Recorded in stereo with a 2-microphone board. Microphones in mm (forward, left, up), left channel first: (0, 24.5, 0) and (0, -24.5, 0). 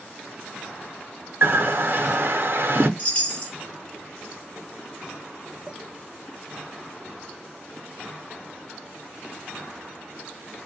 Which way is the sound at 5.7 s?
15° right (ahead or behind).